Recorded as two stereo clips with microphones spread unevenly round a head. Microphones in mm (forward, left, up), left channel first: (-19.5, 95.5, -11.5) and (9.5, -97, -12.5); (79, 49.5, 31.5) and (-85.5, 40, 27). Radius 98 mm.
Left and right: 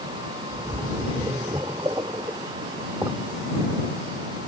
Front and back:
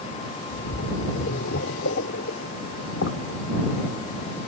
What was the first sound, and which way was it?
A splash, 5° right.